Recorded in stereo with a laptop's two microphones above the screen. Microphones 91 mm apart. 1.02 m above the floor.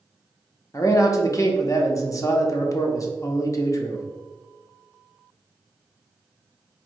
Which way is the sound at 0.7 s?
35° left (ahead or behind).